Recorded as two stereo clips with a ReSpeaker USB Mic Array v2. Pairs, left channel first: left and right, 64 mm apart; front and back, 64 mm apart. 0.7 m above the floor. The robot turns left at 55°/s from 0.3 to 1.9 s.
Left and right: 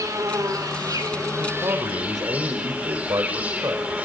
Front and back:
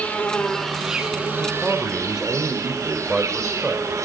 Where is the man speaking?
70° right, 3 m; by 4.1 s 100° right, 3 m.